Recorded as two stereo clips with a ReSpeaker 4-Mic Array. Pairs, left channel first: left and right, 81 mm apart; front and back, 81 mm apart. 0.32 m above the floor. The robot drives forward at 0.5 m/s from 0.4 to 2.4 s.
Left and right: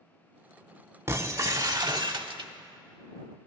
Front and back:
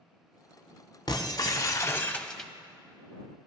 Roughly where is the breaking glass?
Ahead right.